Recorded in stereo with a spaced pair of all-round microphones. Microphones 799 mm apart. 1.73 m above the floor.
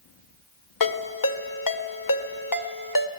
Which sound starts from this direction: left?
A ringtone, at 0.8 s.